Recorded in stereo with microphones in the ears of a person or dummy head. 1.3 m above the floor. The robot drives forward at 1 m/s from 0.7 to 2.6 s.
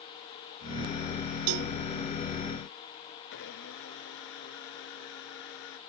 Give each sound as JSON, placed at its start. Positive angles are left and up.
{"t": 1.5, "sound": "a cowbell", "side_deg": -65}
{"t": 3.3, "sound": "a blender", "side_deg": 65}